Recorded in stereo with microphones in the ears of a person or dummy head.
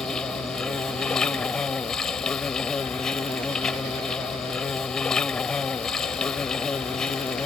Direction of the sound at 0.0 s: 5° left (ahead or behind).